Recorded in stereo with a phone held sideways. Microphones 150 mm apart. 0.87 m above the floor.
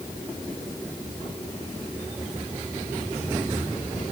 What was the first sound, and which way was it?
Only background noise.